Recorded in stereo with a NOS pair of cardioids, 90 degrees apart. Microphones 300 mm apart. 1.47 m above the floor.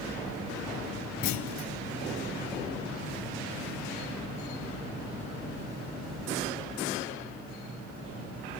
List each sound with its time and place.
1.2 s a clunk: 70° left, 0.7 m